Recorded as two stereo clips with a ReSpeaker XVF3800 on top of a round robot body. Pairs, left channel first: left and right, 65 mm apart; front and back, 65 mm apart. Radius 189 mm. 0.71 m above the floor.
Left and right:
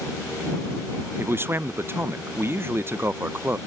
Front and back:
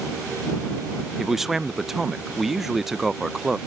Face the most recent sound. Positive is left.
turn(degrees=-100)